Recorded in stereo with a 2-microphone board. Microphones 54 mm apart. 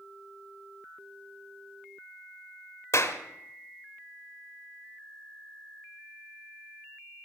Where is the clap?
60° left (ahead or behind), 1.2 m.